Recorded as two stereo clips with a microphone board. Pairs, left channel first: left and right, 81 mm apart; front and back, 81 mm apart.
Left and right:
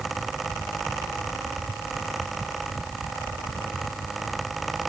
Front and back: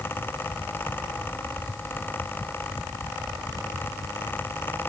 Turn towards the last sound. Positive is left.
No sound to turn to.